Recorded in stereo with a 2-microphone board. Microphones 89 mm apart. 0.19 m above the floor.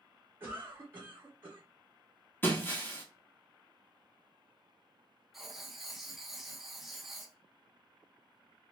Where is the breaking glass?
20° left (ahead or behind), 1.0 m.